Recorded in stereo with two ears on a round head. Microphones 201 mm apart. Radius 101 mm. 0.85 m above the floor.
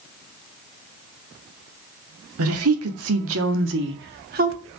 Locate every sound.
2.4 s a woman speaking: 70° right (ahead or behind), 2 m; by 4.6 s 35° right (ahead or behind), 1.9 m